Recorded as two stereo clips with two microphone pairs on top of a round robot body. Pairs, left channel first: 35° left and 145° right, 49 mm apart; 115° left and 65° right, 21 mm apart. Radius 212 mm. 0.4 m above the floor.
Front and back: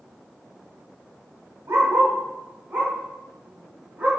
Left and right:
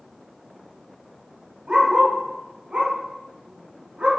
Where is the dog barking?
110° right, 1.8 m; by 4.1 s 85° right, 3 m.